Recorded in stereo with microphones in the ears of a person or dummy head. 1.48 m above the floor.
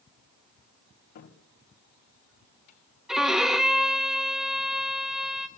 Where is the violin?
5° left (ahead or behind), 0.9 m.